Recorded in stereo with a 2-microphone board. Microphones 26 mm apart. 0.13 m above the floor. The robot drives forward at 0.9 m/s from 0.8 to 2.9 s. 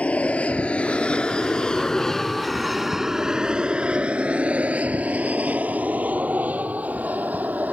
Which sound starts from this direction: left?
An aircraft, at 0.0 s.